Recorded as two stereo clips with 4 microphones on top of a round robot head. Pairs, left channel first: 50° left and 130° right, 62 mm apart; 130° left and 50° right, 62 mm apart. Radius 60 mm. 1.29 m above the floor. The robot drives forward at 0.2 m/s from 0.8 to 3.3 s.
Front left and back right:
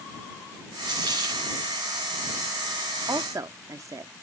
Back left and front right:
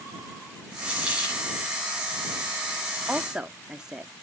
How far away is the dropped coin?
About 6.5 m.